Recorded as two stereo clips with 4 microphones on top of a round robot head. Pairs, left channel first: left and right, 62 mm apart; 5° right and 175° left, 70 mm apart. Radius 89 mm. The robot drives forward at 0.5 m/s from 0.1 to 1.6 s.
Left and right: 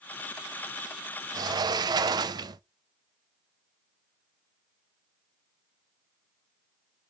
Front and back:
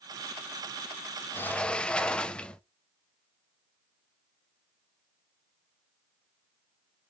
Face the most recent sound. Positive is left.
turn(degrees=-80)